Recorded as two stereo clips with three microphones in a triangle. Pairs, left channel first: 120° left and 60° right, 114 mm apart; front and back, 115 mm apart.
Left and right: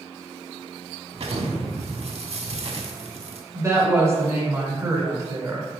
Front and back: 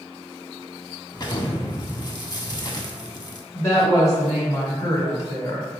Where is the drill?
I don't hear a drill.